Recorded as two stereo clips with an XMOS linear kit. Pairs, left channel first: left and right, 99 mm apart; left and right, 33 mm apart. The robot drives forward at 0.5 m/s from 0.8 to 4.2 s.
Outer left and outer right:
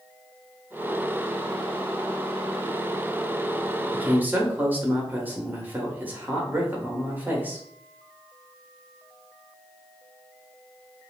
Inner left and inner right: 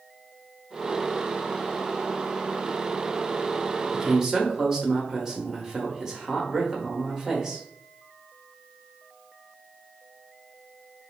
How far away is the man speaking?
About 1.0 m.